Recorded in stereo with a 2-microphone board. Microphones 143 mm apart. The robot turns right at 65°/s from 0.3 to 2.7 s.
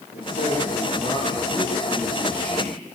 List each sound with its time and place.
0.1 s a man speaking: 90° left, 8.5 m; by 2.7 s 115° right, 8.5 m